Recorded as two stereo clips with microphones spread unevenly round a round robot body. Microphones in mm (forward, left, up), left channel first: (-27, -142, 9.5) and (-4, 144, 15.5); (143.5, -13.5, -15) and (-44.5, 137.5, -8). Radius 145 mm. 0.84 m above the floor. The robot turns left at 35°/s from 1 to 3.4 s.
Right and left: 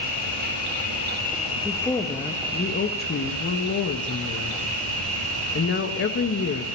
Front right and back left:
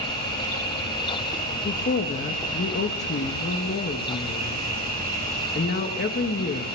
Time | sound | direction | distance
0.0 | an insect | 150° right | 9 m
1.6 | a woman speaking | 10° right | 1.0 m